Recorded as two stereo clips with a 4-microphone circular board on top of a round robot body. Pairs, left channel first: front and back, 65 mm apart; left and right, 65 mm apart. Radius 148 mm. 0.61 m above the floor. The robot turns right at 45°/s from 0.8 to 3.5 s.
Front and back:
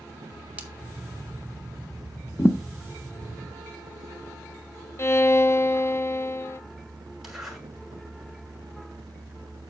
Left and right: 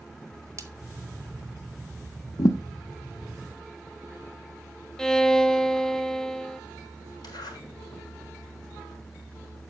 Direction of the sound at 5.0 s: 10° left.